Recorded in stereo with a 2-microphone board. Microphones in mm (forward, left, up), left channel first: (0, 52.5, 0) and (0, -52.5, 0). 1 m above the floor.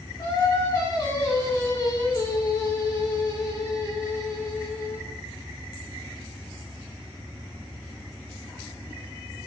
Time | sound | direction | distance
0.2 | singing | 30° left (ahead or behind) | 2 m